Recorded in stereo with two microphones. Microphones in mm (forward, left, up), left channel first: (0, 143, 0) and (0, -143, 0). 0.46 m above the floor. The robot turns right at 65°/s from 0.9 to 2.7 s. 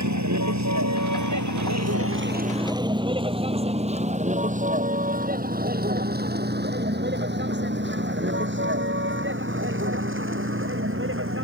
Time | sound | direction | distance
0.0 | a vehicle | 75° right (ahead or behind) | ?